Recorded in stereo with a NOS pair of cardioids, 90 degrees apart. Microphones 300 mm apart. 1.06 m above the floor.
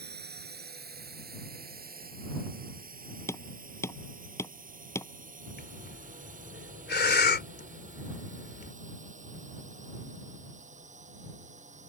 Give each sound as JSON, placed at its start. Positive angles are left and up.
{"t": 0.0, "sound": "a drone", "azimuth_deg": -35}
{"t": 3.3, "sound": "hammering", "azimuth_deg": 10}
{"t": 5.6, "sound": "breathing", "azimuth_deg": 35}